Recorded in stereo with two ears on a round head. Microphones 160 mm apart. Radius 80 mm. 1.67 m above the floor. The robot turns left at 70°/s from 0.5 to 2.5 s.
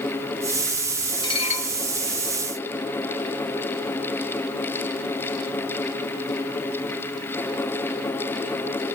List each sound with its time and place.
1.2 s dishes clattering: 150° left, 1.5 m; by 1.7 s 120° left, 1.5 m